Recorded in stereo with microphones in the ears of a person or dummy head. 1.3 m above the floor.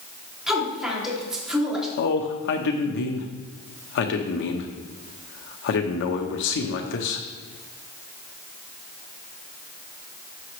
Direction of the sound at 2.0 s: 65° left (ahead or behind).